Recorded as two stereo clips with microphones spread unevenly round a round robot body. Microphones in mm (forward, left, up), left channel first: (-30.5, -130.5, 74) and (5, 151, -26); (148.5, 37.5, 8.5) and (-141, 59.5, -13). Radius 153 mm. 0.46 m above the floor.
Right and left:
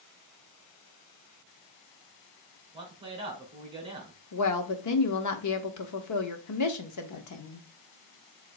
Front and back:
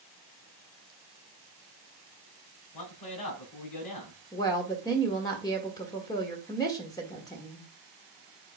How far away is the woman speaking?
About 1.5 m.